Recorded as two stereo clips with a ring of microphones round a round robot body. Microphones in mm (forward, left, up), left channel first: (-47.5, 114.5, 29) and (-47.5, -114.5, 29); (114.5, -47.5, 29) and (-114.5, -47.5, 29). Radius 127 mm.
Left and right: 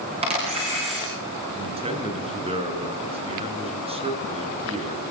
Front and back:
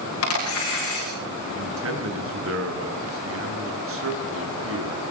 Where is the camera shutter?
20° right, 7.5 m.